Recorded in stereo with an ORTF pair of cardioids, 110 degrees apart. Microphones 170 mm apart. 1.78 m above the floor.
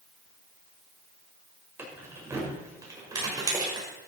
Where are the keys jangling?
15° right, 5.5 m; by 3.9 s 25° right, 5.5 m.